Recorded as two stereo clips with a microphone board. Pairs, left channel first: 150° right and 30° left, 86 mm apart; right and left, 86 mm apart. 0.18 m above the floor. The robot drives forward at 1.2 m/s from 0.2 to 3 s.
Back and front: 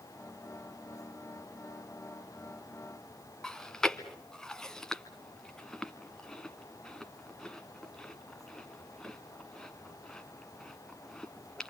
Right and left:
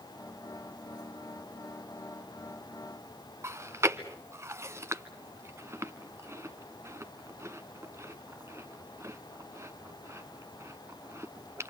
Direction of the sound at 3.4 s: 130° left.